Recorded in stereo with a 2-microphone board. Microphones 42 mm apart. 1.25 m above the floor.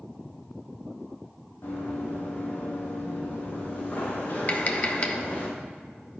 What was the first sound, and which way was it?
Running footsteps, 65° left (ahead or behind).